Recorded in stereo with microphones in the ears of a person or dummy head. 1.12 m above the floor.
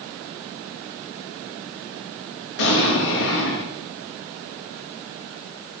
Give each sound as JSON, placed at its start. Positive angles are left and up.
{"t": 2.6, "sound": "an explosion", "side_deg": 75, "distance_m": 4.5}